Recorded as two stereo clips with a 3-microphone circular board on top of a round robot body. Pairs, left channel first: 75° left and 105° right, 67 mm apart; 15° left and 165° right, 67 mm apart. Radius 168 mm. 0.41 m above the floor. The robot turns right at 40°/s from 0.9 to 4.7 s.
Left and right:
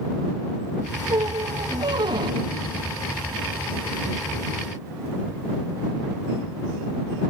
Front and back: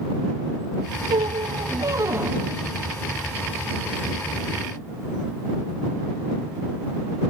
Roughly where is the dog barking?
I don't hear a dog barking.